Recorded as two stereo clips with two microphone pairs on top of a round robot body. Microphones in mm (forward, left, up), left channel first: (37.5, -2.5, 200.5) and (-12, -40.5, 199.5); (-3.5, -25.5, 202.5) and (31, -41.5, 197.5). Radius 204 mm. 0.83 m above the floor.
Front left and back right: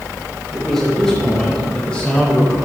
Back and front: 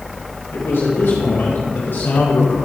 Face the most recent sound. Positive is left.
turn(degrees=110)